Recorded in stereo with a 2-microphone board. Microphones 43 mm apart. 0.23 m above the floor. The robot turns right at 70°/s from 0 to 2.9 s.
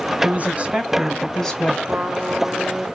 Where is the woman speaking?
70° right, 1.6 m; by 1.8 s 40° left, 1.6 m.